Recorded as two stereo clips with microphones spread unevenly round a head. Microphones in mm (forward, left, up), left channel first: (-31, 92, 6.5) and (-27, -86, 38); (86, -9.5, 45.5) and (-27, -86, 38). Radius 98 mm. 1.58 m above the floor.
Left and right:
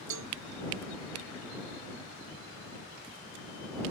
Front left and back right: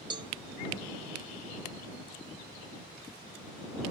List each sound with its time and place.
0.1 s a cowbell: 90° right